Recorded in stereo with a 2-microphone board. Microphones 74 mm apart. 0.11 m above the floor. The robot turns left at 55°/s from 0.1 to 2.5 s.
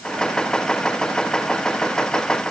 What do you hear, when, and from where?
Only background noise.